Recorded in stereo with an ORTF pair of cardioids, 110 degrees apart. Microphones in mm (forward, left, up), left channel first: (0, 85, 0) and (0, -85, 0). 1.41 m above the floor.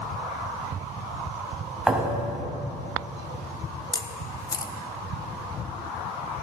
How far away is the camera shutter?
About 0.9 m.